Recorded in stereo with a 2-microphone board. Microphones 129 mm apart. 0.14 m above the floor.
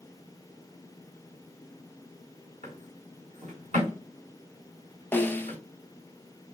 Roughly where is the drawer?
Right.